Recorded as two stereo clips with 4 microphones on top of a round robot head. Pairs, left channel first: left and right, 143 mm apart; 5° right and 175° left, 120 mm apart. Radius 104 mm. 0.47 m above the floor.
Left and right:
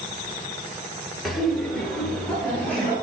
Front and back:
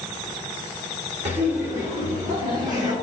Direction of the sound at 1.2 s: Straight behind.